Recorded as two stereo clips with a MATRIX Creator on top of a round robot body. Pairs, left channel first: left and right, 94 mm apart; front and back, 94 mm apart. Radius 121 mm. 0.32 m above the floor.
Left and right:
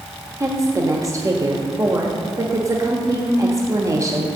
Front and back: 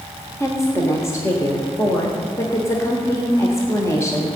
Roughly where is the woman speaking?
Ahead right.